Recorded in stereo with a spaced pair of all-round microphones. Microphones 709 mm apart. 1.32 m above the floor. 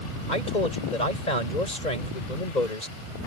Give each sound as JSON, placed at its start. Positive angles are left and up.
{"t": 0.3, "sound": "a man speaking", "side_deg": 85}